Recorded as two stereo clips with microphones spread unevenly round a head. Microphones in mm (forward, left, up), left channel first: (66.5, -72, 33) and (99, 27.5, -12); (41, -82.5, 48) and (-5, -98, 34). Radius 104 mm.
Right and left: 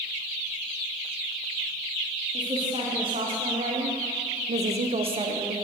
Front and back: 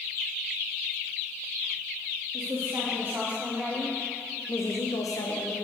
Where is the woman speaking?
140° left, 2.5 m; by 5.6 s 25° left, 1.2 m.